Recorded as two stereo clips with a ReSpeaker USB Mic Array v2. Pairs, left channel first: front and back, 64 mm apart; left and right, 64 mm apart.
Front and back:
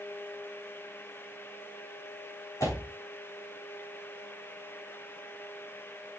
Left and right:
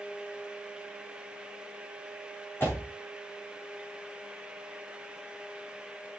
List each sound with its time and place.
2.6 s a door slam: 35° left, 6 m